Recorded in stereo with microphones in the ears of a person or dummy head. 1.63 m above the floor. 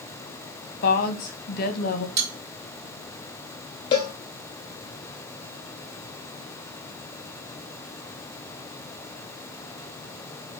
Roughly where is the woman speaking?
Left.